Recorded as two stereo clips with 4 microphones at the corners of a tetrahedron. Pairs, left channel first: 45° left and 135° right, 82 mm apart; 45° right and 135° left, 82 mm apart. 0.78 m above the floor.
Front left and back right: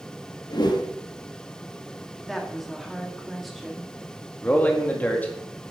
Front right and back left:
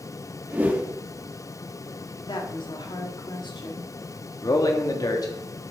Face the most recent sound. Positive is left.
turn(degrees=-20)